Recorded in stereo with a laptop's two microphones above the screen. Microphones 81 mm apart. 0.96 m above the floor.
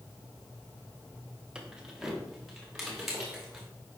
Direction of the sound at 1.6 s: 10° right (ahead or behind).